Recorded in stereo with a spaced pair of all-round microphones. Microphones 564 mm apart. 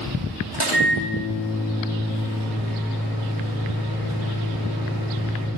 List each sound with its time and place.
0.5 s a microwave: 40° left (ahead or behind), 2.5 m